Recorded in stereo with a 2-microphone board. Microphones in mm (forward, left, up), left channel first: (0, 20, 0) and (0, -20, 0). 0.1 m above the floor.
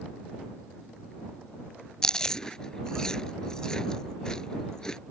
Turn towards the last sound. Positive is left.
turn(degrees=20)  # may be behind; listen again after turning